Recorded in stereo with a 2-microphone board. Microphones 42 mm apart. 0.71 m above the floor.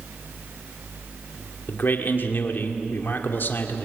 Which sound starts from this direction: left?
A man speaking, at 1.7 s.